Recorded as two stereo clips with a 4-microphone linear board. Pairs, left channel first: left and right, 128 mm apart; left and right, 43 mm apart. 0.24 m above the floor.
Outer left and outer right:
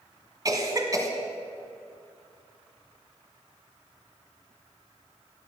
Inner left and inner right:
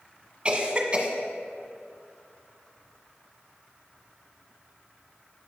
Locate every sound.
0.5 s a cough: 30° right (ahead or behind), 1.6 m